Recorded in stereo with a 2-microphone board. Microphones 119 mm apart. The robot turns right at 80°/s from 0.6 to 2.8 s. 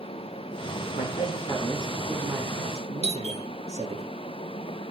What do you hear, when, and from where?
1.0 s a man speaking: 100° left, 4 m; by 4.0 s 110° right, 4 m
3.0 s a doorbell: 60° right (ahead or behind), 2 m